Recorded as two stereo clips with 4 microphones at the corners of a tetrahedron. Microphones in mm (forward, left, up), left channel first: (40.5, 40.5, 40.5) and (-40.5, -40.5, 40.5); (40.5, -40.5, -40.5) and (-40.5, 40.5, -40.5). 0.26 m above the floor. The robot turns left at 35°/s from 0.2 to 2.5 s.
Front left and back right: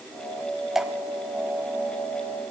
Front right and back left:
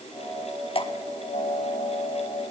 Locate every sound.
0.8 s dripping: 50° right, 0.6 m; by 0.9 s 55° right, 0.6 m